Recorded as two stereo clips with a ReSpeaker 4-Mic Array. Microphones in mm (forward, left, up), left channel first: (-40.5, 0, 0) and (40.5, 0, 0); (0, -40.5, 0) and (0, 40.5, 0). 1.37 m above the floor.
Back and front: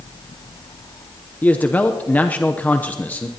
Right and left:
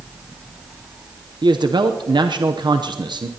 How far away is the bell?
No bell in this recording.